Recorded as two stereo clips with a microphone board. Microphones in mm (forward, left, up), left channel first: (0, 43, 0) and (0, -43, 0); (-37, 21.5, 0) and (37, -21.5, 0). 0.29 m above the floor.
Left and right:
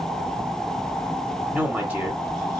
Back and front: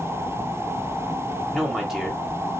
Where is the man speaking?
110° right, 1.1 m.